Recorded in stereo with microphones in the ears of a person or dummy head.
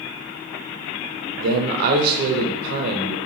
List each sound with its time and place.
1.4 s a man speaking: 60° right (ahead or behind), 0.7 m